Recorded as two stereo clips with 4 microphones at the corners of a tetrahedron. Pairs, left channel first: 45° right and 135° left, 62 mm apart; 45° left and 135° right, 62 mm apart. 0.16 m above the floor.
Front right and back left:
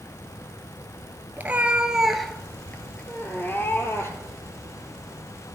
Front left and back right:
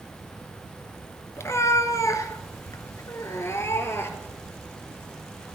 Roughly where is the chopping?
I don't hear chopping.